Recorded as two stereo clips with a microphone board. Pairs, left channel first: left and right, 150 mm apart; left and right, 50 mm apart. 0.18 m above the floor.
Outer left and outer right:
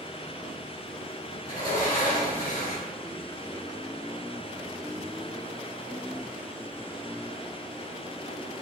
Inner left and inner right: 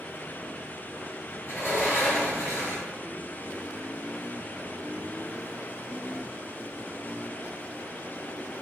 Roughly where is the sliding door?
Left.